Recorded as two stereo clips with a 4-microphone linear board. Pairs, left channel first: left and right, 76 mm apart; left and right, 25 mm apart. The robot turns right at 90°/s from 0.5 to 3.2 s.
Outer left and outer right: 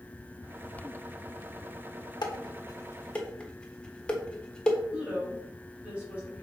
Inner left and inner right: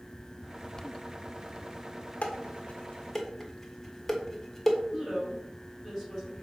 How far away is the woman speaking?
About 3 m.